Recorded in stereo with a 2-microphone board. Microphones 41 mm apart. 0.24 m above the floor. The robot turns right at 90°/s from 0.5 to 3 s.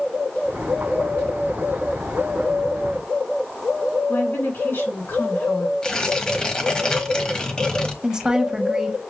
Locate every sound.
4.1 s a woman speaking: 60° left (ahead or behind), 3 m
5.8 s tearing paper: 20° left (ahead or behind), 1.2 m
8.0 s a woman speaking: 15° right (ahead or behind), 1.0 m